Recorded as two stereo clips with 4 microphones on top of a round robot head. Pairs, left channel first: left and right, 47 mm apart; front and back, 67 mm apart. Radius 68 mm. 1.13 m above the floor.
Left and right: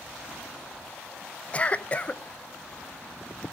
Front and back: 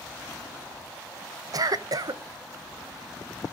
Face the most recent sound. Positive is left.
turn(degrees=150)